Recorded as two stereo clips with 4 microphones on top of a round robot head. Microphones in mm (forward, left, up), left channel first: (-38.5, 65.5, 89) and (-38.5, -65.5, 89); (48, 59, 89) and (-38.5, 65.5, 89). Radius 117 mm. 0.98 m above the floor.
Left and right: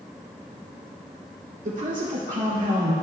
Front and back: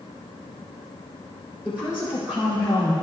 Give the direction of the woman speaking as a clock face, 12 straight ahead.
3 o'clock.